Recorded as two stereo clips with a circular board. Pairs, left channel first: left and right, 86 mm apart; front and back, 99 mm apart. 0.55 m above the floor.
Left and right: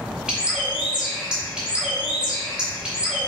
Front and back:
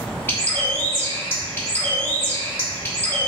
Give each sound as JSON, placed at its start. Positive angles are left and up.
{"t": 0.3, "sound": "a bird", "azimuth_deg": -25, "distance_m": 1.0}